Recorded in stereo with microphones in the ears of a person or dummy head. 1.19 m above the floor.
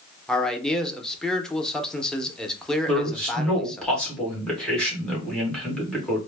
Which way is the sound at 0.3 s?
5° left (ahead or behind).